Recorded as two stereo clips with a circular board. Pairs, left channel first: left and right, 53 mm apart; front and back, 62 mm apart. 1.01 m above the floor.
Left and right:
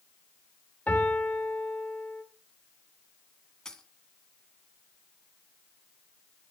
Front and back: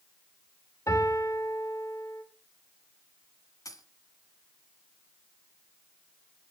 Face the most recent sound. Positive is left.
turn(degrees=10)